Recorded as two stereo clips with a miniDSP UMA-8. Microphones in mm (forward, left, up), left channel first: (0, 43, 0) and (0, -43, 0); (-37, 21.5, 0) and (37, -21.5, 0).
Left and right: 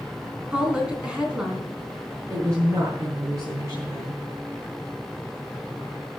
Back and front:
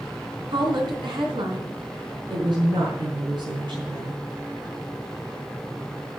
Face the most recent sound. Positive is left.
turn(degrees=-40)